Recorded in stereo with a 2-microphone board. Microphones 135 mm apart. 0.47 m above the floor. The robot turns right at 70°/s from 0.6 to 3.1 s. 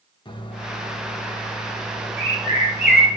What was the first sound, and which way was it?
A microwave, 65° left.